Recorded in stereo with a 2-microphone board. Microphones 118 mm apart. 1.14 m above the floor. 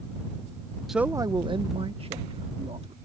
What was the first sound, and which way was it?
A man speaking, centre (ahead or behind).